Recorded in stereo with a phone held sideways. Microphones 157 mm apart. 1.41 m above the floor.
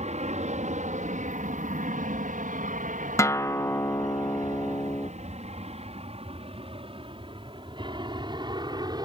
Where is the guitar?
20° left (ahead or behind).